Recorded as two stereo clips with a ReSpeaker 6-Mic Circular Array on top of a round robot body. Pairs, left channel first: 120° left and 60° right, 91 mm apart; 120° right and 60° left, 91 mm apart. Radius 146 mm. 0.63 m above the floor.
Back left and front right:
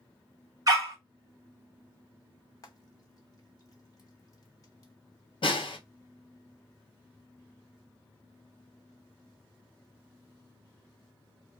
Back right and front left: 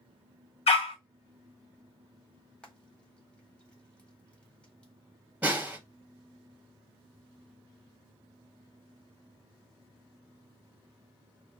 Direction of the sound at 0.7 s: 110° right.